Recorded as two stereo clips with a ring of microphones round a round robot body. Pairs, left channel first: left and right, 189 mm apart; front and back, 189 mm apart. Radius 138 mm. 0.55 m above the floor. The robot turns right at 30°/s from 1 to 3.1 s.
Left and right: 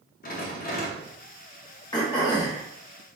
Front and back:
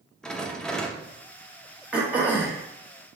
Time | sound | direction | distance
0.2 | a rattle | 85° left | 0.7 m
1.9 | throat clearing | 105° left | 1.0 m